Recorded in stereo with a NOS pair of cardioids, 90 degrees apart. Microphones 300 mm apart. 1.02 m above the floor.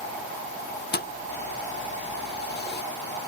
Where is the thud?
35° left.